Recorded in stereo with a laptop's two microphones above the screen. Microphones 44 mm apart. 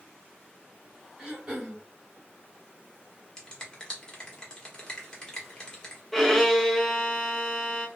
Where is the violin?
5° left (ahead or behind), 0.6 m.